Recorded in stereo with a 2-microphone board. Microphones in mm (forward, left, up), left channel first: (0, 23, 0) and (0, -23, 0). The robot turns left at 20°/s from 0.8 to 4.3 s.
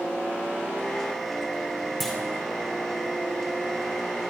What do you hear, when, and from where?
2.0 s a clunk: 5° left (ahead or behind), 3 m